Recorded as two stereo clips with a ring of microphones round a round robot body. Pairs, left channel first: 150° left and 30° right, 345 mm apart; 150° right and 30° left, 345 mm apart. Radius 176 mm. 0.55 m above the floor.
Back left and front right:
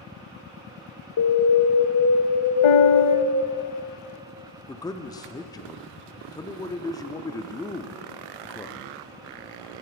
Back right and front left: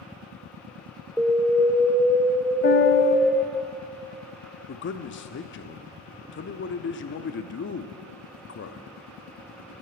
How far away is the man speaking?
About 0.8 m.